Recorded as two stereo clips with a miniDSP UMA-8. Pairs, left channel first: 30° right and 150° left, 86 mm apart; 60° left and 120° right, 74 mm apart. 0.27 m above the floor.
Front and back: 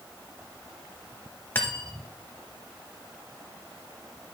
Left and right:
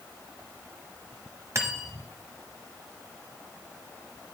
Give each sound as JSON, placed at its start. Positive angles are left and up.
{"t": 1.6, "sound": "cutlery clinking", "azimuth_deg": -90, "distance_m": 0.9}